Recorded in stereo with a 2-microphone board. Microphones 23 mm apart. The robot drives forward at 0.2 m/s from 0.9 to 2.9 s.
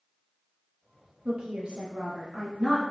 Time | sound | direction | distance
1.2 | a woman speaking | 55° right (ahead or behind) | 1.6 m